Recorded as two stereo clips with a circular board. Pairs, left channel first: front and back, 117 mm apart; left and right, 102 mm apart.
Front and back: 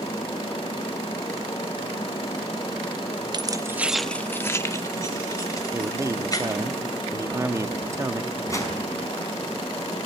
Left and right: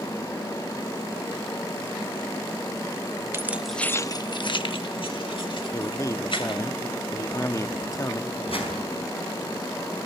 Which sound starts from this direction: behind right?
Keys jangling, at 3.3 s.